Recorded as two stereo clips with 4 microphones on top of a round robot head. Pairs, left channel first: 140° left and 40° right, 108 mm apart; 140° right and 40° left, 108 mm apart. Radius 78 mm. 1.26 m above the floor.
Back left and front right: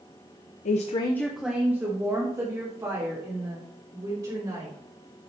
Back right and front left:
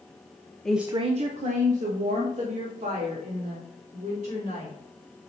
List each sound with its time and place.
0.7 s a woman speaking: 135° left, 0.6 m; by 4.8 s 15° left, 5 m